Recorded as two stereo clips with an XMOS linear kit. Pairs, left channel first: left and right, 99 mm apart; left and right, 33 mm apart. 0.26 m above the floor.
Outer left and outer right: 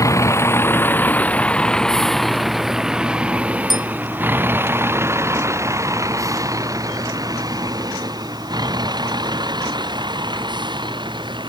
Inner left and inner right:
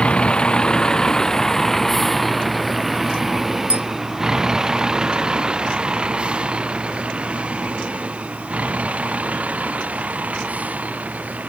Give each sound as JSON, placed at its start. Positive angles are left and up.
{"t": 0.0, "sound": "a vehicle", "side_deg": 30}
{"t": 3.7, "sound": "a bell", "side_deg": -45}